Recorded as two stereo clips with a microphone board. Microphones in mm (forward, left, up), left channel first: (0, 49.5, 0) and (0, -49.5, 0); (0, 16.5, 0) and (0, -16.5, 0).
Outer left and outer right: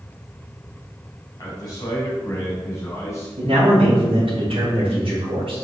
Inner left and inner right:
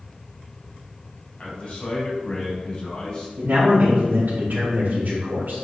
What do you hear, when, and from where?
1.4 s a man speaking: 40° left (ahead or behind), 4 m; by 3.3 s 30° left (ahead or behind), 5 m
3.4 s a man speaking: 70° right (ahead or behind), 4 m